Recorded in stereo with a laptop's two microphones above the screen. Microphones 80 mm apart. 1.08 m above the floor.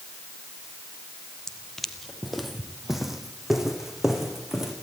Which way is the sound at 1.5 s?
5° left (ahead or behind).